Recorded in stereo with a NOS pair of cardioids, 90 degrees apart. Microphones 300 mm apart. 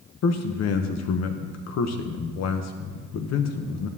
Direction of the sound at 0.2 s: 60° left.